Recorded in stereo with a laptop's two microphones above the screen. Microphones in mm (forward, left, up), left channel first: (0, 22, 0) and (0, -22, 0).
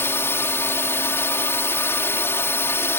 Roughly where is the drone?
Left.